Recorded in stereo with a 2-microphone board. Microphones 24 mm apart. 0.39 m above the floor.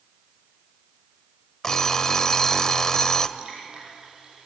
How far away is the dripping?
About 10 m.